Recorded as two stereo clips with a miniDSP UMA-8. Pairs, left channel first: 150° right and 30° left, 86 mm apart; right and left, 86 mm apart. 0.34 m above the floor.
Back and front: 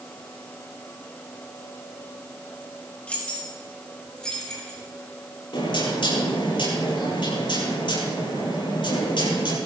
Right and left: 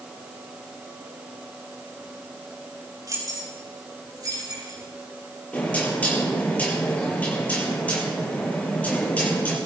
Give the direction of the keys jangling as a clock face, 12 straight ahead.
8 o'clock.